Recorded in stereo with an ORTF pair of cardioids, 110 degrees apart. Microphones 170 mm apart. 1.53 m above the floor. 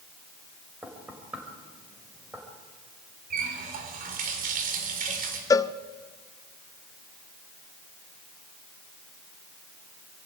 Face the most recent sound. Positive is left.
turn(degrees=20)